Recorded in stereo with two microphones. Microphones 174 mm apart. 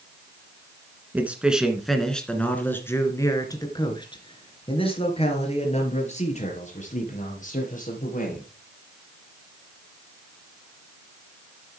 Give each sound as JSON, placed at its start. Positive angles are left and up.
{"t": 1.1, "sound": "a man speaking", "side_deg": -10, "distance_m": 2.0}